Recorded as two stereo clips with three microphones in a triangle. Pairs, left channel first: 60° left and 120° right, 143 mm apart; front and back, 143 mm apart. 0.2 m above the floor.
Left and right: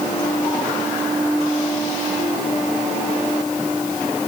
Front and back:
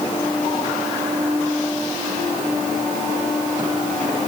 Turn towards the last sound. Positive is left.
No sound to turn to.